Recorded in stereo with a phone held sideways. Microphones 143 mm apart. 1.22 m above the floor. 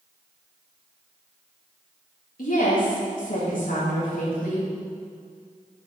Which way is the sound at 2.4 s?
75° left (ahead or behind).